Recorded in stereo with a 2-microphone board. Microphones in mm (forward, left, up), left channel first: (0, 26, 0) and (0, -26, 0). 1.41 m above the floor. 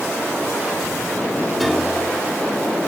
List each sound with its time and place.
1.6 s a piano: centre (ahead or behind)